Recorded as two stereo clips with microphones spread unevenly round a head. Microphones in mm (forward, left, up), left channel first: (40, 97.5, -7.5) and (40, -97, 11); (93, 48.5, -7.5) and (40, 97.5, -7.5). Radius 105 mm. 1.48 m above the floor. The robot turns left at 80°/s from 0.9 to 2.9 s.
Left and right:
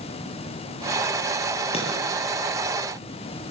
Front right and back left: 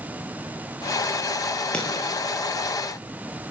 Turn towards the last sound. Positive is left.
turn(degrees=-60)